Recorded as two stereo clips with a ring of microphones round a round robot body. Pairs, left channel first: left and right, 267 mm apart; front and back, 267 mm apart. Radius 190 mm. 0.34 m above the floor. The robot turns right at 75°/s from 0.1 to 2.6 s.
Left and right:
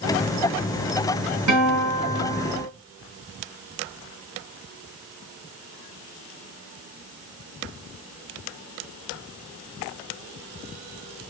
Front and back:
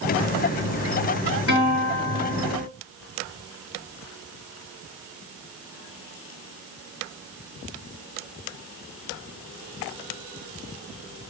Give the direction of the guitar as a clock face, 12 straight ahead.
3 o'clock.